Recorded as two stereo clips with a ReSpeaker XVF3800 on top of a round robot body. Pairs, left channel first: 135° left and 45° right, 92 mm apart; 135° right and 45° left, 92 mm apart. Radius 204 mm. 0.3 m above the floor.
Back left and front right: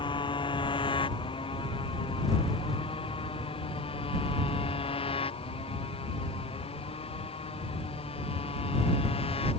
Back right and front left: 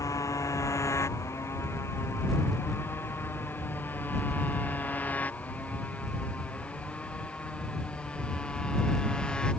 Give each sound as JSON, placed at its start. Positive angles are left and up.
{"t": 0.0, "sound": "a motorcycle", "azimuth_deg": 170}